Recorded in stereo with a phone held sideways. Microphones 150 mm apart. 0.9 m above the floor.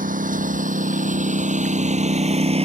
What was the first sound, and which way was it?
A lawn mower, 65° right (ahead or behind).